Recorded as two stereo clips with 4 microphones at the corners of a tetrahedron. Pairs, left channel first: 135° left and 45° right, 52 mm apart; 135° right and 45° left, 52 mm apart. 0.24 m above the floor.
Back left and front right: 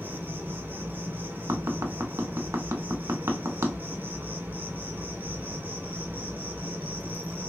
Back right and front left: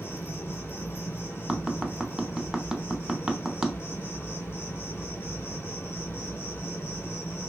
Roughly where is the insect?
Right.